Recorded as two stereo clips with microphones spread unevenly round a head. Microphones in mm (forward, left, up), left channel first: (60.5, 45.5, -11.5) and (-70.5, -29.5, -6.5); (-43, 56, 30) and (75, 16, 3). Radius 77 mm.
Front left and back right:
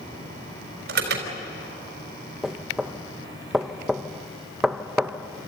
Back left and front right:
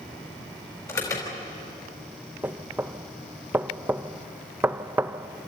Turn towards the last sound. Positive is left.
turn(degrees=-60)